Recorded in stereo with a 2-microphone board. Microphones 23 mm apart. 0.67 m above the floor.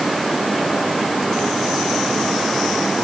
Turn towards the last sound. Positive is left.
No sound to turn to.